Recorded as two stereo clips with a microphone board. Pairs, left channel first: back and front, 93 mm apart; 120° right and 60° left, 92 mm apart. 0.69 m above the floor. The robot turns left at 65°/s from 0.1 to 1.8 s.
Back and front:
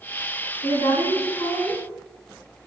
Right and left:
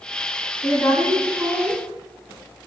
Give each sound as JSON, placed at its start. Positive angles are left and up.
{"t": 0.6, "sound": "a woman speaking", "azimuth_deg": -170, "distance_m": 2.5}